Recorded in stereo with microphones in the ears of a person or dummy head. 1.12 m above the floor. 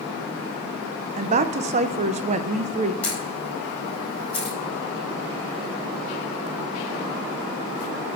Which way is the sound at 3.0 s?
10° left (ahead or behind).